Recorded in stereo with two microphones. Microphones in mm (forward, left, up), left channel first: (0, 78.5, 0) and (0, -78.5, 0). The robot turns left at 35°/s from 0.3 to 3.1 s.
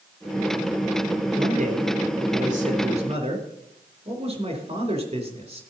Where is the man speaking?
65° right, 4 m; by 5.6 s 130° right, 4 m.